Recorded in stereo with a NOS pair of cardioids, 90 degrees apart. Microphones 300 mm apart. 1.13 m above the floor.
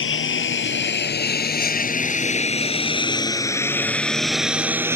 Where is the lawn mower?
45° left; by 5.0 s 10° right.